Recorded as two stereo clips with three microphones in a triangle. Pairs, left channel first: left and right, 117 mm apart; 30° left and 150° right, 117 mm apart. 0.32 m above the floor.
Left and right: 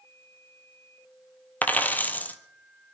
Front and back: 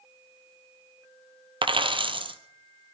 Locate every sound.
1.6 s a dropped coin: 165° left, 1.0 m